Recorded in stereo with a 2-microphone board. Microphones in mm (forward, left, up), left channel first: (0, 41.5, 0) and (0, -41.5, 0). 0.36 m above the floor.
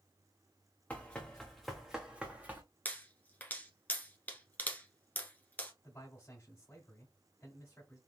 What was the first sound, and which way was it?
Running footsteps, 20° left (ahead or behind).